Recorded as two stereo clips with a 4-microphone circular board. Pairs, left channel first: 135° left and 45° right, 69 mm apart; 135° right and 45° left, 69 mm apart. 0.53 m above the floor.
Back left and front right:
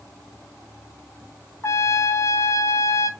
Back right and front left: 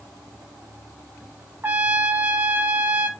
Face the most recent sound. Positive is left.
turn(degrees=100)